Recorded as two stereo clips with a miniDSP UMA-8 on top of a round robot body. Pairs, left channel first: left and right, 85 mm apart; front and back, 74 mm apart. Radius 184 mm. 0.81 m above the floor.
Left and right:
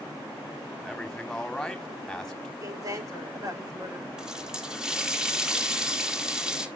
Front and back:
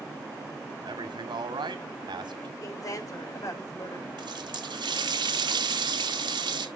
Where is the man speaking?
175° left, 2 m.